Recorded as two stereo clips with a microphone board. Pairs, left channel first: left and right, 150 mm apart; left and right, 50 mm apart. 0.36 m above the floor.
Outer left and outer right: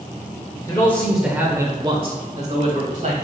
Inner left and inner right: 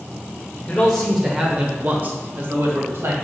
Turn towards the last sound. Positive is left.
turn(degrees=-60)  # may be behind; listen again after turning